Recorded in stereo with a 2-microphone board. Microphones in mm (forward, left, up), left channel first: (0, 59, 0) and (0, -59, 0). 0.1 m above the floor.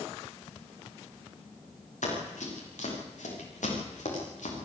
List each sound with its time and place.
2.0 s running footsteps: 85° left, 8.5 m